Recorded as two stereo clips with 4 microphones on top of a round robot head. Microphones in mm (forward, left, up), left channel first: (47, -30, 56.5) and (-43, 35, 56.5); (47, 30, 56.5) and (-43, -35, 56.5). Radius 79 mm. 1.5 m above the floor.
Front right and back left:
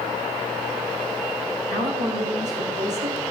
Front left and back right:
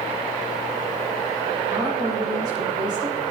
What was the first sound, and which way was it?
A woman speaking, 150° left.